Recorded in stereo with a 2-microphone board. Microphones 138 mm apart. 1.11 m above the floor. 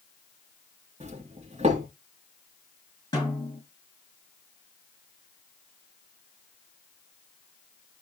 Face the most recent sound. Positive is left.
turn(degrees=25)  # may be behind; listen again after turning